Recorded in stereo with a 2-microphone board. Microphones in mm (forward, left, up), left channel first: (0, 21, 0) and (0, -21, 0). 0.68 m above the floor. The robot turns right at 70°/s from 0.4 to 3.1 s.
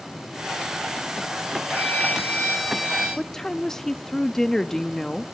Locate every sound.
1.7 s a violin: 110° left, 10 m; by 3.1 s 155° right, 10 m
3.2 s a woman speaking: 10° left (ahead or behind), 0.6 m